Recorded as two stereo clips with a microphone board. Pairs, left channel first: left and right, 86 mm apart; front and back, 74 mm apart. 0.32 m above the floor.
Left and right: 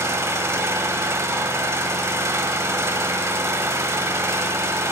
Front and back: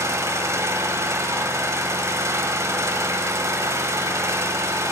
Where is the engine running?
140° right, 1.0 m.